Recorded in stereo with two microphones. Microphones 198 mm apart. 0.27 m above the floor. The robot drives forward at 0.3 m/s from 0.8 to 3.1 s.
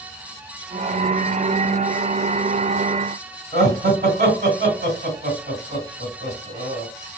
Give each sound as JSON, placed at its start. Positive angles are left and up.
{"t": 3.5, "sound": "laughter", "side_deg": -45, "distance_m": 2.0}